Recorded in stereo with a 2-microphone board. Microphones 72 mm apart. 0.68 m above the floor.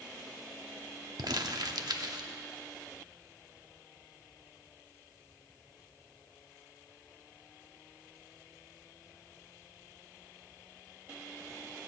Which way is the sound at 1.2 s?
65° right (ahead or behind).